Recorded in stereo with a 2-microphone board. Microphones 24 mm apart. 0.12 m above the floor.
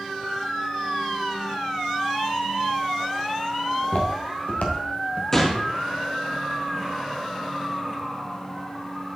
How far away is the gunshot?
About 1.7 m.